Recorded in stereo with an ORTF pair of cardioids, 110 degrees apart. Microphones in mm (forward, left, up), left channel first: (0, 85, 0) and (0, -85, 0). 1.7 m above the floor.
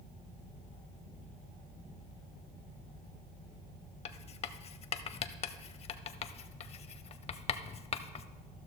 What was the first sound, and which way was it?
Writing, 40° left.